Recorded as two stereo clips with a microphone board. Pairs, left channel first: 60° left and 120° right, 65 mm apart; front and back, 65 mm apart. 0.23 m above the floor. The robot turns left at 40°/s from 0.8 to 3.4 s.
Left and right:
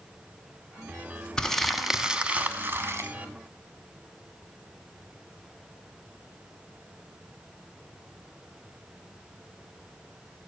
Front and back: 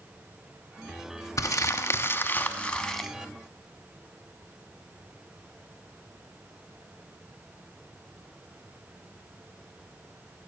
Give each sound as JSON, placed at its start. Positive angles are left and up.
{"t": 1.4, "sound": "crumpling", "azimuth_deg": -15, "distance_m": 0.8}